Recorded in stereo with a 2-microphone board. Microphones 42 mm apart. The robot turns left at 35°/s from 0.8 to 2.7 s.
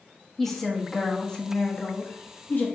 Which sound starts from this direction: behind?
A woman speaking, at 0.4 s.